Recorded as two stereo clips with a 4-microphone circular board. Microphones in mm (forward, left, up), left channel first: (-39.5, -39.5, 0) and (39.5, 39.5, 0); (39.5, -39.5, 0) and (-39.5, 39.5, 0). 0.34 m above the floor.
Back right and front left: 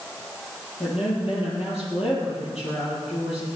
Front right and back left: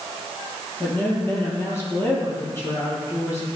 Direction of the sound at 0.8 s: 115° right.